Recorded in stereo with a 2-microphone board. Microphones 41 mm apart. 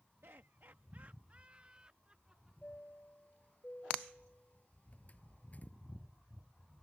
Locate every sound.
0.2 s laughter: 75° right (ahead or behind); by 2.5 s 20° right (ahead or behind)
2.6 s a chime: 35° left (ahead or behind)